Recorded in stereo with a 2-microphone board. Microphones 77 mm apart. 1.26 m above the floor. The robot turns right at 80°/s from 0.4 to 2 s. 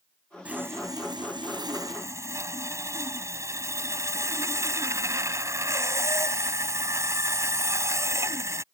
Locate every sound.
0.5 s sawing: 165° right; by 8.6 s 40° right